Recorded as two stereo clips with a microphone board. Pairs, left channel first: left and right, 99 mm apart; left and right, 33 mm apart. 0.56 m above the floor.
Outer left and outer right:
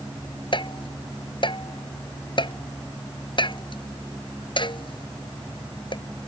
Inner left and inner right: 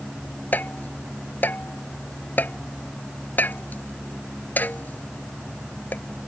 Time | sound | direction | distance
0.5 | tapping | 55° left (ahead or behind) | ?